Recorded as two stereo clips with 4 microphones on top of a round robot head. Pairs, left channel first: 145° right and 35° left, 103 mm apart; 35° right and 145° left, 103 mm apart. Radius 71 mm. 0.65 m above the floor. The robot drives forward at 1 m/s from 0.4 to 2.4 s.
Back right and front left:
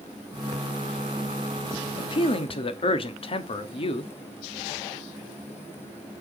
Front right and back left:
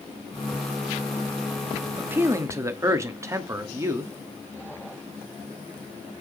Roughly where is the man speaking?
Behind right.